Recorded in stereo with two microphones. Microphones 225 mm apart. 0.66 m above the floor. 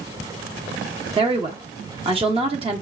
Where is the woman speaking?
25° right (ahead or behind), 1.1 m.